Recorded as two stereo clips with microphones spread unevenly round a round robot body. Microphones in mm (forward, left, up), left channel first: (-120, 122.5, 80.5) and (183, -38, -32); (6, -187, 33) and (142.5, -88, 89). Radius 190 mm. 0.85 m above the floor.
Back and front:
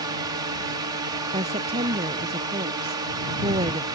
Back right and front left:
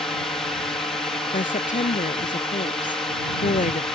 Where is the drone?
80° right.